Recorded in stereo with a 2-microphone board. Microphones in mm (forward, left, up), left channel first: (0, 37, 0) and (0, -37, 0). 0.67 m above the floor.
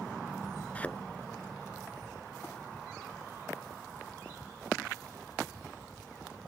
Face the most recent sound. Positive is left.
turn(degrees=20)  # may be behind; listen again after turning